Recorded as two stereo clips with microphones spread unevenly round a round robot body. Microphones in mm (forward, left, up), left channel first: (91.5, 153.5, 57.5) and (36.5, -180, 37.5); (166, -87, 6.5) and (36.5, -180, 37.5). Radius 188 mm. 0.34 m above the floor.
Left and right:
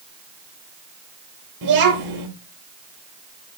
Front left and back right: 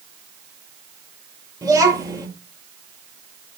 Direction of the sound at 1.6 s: 75° right.